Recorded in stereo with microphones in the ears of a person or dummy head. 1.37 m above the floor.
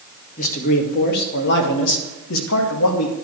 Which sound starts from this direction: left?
A man speaking, at 0.4 s.